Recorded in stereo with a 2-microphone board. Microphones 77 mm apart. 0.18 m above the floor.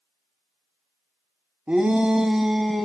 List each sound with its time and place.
1.7 s a shout: 20° right (ahead or behind), 1.0 m; by 2.9 s centre (ahead or behind), 1.2 m